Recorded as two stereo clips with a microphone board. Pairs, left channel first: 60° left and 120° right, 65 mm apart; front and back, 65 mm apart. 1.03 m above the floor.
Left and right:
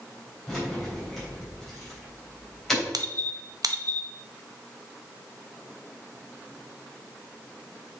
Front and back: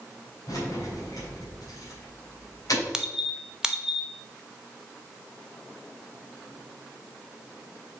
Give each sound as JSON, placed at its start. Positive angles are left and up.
{"t": 0.5, "sound": "keys jangling", "azimuth_deg": -25, "distance_m": 3.5}
{"t": 2.9, "sound": "a squeak", "azimuth_deg": -100, "distance_m": 0.7}